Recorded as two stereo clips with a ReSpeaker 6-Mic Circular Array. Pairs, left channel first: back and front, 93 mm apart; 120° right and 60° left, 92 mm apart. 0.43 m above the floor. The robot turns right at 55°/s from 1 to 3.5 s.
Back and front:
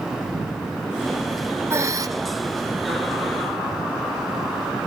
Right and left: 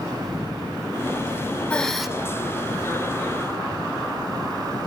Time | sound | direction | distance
1.7 | breathing | 45° right | 0.8 m